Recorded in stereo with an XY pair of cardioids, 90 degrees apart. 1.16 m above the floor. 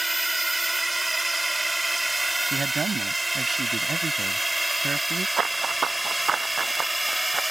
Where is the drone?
15° right; by 7.5 s 10° right.